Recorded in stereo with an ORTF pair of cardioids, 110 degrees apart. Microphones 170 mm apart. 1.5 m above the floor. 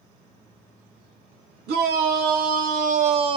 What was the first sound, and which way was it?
A shout, 70° right.